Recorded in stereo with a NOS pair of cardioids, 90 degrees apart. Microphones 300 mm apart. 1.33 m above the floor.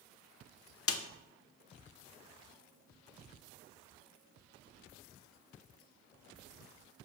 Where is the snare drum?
50° left, 0.7 m.